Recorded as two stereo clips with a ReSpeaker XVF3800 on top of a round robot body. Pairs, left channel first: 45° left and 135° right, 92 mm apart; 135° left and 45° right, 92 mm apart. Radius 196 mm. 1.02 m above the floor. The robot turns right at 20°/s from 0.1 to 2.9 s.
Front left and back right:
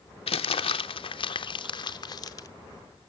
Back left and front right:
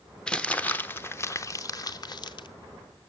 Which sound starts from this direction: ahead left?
Crumpling, at 0.3 s.